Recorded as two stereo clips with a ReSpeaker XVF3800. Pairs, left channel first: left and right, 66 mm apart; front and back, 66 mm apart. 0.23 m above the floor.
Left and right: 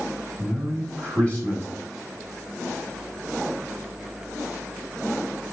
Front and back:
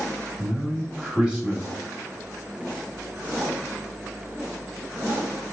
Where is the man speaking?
125° left, 1.3 m.